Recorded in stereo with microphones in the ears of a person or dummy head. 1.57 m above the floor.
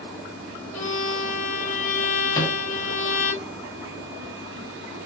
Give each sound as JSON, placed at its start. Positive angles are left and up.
{"t": 0.7, "sound": "a violin", "side_deg": 45, "distance_m": 2.5}
{"t": 2.3, "sound": "a microwave", "side_deg": 20, "distance_m": 0.8}